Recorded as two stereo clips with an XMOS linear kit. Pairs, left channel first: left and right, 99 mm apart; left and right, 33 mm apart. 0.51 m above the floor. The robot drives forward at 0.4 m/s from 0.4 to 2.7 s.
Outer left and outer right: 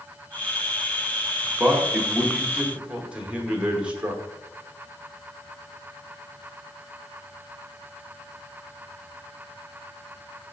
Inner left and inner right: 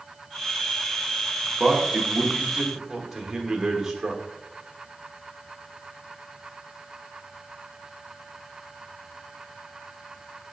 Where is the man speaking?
15° right (ahead or behind), 0.9 m; by 4.2 s 10° right (ahead or behind), 1.1 m.